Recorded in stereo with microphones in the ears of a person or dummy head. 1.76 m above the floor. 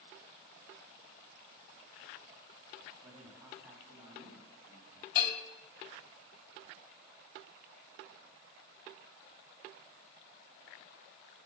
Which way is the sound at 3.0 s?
10° right (ahead or behind).